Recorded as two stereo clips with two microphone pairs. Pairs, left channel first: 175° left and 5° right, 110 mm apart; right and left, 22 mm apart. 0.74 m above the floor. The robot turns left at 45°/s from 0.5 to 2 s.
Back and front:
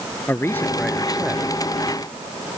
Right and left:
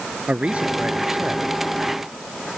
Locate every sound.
0.3 s a man speaking: 105° left; by 1.6 s 55° left